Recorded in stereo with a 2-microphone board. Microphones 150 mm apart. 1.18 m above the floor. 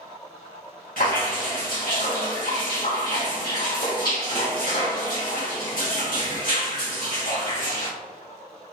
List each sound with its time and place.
1.0 s dripping: 70° left (ahead or behind), 1.8 m